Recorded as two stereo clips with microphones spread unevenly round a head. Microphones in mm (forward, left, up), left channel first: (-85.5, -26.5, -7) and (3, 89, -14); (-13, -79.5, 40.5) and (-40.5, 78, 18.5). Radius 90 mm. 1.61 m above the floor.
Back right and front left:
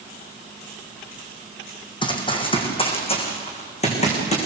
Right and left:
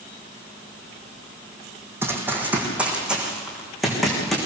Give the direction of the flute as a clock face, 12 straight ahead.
I don't hear a flute.